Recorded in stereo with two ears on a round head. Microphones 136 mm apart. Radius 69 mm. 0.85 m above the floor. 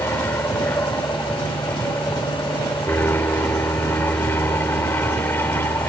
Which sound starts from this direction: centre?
An aircraft, at 0.0 s.